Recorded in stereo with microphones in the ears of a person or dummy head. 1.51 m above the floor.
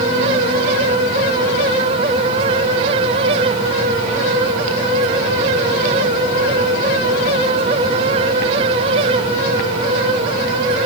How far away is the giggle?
I don't hear a giggle.